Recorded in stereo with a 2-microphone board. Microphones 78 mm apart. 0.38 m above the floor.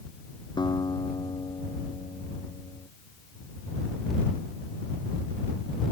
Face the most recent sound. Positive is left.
turn(degrees=65)  # may be behind; listen again after turning